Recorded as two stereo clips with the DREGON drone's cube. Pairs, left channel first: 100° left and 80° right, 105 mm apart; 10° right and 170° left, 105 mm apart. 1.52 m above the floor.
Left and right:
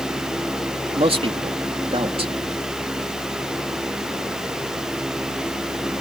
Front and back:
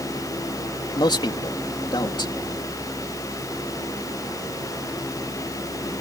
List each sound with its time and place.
0.9 s a man speaking: 55° right